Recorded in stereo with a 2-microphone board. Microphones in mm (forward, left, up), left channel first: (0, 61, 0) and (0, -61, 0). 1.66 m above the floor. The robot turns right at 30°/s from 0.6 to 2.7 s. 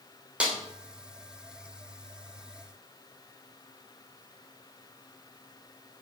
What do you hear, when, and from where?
0.4 s a snare drum: 10° right (ahead or behind), 3.5 m